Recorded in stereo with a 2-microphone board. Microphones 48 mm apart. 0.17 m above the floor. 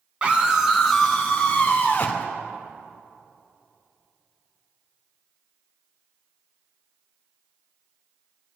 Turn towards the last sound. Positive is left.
turn(degrees=45)  # may be behind; listen again after turning